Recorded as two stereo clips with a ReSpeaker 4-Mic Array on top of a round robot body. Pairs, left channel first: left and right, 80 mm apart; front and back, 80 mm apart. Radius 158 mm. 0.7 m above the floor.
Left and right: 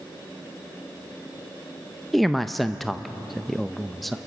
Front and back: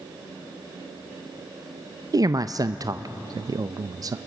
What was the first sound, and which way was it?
A man speaking, straight behind.